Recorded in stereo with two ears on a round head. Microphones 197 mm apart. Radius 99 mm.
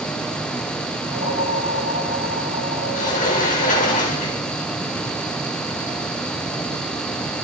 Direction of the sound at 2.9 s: 35° left (ahead or behind).